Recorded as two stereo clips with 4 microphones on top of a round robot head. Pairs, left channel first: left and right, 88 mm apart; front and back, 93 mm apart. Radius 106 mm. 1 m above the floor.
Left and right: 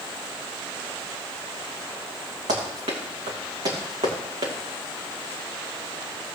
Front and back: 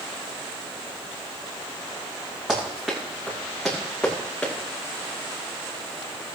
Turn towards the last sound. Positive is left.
turn(degrees=-80)